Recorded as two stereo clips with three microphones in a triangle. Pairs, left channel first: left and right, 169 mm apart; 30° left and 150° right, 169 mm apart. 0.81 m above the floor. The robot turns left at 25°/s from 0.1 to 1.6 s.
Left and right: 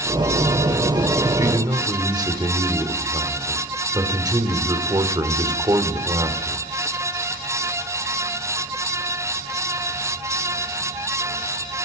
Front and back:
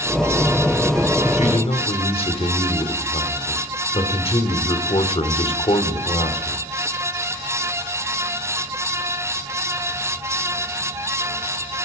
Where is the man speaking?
20° right, 2.5 m; by 6.7 s 25° right, 2.5 m.